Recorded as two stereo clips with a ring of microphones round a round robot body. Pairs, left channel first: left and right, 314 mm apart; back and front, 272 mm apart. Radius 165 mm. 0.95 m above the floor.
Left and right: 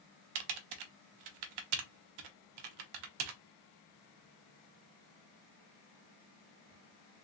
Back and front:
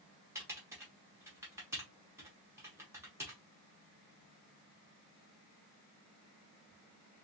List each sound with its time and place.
0.3 s typing on a keyboard: 80° right, 0.5 m